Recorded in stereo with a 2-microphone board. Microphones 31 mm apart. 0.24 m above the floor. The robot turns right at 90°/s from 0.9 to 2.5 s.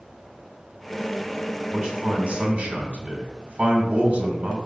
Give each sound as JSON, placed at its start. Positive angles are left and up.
{"t": 1.7, "sound": "a man speaking", "azimuth_deg": -145, "distance_m": 1.9}